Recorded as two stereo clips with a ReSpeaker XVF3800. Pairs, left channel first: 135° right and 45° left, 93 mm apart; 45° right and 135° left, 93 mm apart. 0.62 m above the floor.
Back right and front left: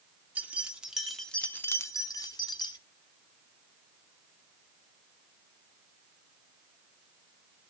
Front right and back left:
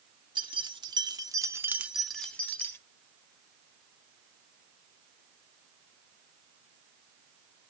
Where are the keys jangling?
115° left, 1.0 m; by 2.8 s 105° right, 0.8 m.